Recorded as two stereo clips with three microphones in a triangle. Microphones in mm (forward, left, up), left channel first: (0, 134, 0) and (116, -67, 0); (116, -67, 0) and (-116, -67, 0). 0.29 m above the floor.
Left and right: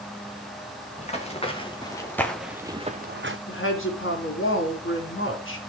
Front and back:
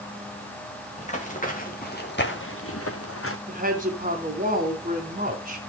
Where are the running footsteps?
60° left, 3.5 m; by 3.4 s 30° right, 1.3 m.